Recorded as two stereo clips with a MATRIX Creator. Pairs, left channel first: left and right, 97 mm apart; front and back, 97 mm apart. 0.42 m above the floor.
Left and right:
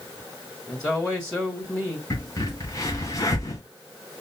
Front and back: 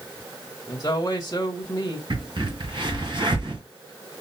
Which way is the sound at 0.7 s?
10° left.